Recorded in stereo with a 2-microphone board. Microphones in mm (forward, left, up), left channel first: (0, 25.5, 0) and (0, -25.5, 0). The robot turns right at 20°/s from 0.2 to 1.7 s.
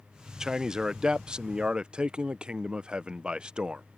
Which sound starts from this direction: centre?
A man speaking, at 0.4 s.